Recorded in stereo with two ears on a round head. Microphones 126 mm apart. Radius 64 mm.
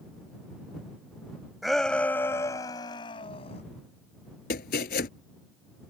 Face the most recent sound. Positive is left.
turn(degrees=70)  # may be behind; listen again after turning